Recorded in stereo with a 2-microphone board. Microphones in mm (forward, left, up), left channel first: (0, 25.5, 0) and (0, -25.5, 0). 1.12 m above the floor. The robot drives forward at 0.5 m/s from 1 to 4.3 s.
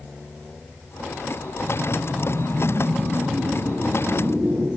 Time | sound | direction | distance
1.6 | a whoosh | 65° right (ahead or behind) | 2.5 m